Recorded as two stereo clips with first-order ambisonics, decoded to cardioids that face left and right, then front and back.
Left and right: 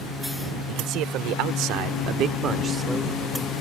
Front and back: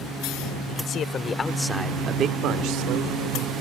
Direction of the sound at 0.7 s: 50° right.